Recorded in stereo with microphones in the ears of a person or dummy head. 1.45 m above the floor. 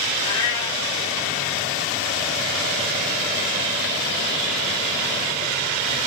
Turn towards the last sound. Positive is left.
turn(degrees=20)  # may be behind; listen again after turning